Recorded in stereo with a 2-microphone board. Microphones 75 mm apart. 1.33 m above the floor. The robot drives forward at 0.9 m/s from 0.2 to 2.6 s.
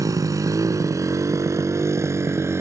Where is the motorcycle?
55° right (ahead or behind); by 2.6 s 40° right (ahead or behind).